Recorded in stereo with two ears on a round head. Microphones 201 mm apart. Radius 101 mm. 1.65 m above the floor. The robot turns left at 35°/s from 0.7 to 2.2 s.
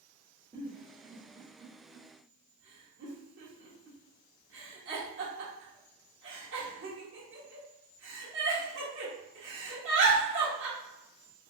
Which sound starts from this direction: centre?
A giggle, at 0.5 s.